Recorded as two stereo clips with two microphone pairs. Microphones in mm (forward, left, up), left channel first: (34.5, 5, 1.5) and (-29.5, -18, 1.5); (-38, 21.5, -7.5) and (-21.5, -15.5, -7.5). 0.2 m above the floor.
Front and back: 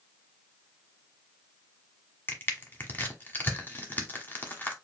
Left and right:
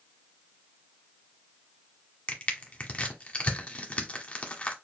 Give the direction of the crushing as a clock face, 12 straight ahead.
10 o'clock.